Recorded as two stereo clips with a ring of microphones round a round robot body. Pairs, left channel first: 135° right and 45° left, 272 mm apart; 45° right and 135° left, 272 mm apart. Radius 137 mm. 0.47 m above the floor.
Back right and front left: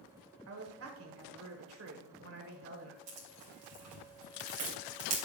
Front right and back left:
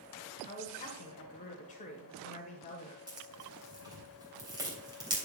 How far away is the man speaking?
About 1.5 m.